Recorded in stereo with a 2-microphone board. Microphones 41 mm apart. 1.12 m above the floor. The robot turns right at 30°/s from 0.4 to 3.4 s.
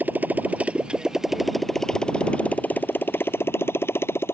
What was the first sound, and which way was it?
A motorcycle, 45° right (ahead or behind).